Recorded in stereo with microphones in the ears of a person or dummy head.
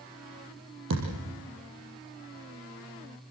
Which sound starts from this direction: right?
A thud, at 0.9 s.